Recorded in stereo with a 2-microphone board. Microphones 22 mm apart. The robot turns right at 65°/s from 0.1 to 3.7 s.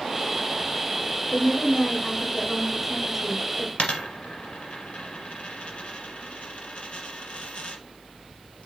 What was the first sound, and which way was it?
A woman speaking, 20° left (ahead or behind).